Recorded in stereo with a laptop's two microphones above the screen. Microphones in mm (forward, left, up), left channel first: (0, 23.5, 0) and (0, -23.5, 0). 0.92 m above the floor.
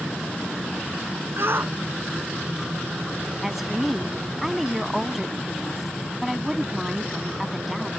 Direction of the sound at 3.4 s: 5° right (ahead or behind).